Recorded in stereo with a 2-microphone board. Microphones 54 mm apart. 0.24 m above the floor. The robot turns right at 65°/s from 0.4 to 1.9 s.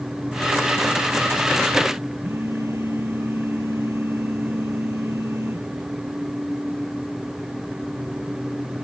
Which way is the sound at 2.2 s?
60° right (ahead or behind).